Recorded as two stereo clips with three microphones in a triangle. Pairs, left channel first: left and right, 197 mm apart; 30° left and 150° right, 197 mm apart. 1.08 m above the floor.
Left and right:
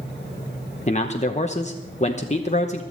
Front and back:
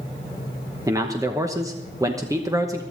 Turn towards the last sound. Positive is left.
turn(degrees=140)